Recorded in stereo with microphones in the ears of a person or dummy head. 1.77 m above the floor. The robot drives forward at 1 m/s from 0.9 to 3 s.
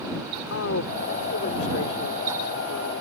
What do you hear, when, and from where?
0.5 s a woman speaking: 80° left; by 3.0 s 75° left (ahead or behind)